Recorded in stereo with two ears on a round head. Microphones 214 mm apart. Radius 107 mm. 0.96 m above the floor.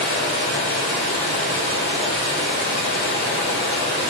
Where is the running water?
45° left (ahead or behind), 1.5 m.